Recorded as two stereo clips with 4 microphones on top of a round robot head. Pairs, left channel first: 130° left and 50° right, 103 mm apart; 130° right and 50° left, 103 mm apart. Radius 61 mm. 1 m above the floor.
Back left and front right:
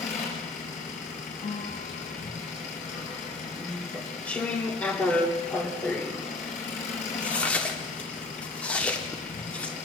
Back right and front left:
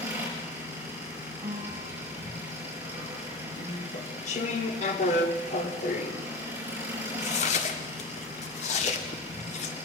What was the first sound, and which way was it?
An engine running, 120° left.